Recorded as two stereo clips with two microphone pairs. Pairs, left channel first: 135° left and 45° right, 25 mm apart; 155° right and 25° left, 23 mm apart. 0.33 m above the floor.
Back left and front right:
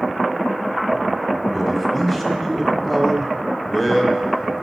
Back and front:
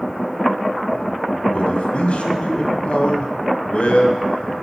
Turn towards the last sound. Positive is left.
turn(degrees=-150)